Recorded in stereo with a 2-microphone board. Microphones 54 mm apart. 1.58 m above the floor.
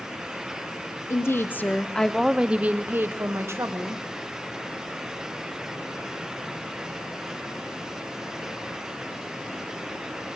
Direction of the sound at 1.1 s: 55° left (ahead or behind).